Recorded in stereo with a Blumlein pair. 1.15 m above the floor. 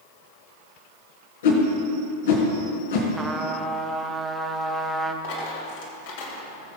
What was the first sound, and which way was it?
A whoosh, 60° left.